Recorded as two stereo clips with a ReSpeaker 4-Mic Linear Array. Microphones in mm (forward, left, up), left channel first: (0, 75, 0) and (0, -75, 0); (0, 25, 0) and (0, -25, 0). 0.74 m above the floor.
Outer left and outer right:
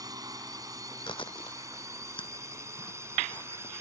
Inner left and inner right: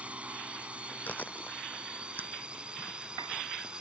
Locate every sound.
0.0 s a drone: 25° right (ahead or behind); by 3.8 s 15° right (ahead or behind)
1.1 s chewing: 35° left (ahead or behind)